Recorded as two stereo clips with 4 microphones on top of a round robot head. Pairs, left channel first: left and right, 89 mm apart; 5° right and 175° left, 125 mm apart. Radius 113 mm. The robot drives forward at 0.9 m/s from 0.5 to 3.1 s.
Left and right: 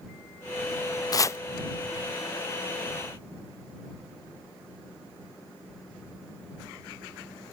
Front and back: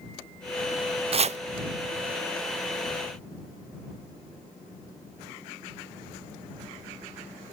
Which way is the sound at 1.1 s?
140° left.